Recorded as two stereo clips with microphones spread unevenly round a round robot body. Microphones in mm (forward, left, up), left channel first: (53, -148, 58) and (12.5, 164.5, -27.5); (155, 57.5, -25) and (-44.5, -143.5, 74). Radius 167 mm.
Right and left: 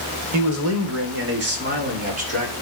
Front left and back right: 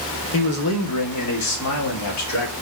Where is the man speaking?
75° left, 1.1 m; by 2.5 s 30° left, 1.9 m.